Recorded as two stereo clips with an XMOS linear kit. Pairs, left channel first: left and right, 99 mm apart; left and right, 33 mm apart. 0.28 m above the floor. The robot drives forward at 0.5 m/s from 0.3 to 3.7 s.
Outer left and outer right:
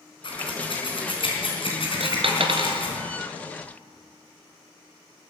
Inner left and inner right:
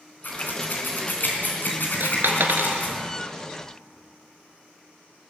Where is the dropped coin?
70° right (ahead or behind), 1.2 m; by 2.8 s 55° right (ahead or behind), 1.4 m.